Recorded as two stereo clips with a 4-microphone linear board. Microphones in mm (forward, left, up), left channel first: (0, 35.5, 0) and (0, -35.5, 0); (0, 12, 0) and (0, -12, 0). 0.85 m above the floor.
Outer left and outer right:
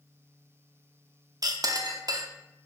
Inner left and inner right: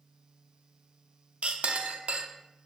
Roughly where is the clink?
Right.